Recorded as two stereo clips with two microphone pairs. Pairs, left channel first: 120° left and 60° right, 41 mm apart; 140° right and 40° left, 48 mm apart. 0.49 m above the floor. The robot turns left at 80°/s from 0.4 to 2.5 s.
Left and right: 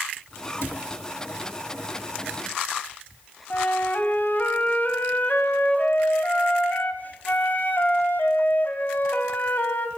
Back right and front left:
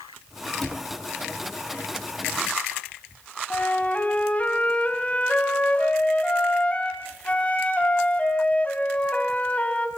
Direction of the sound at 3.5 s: 160° left.